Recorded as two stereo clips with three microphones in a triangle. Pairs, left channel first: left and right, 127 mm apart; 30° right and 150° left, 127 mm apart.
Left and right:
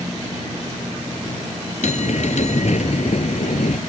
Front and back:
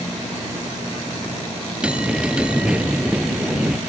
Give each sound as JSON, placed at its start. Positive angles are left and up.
{"t": 1.8, "sound": "a bell", "azimuth_deg": 70}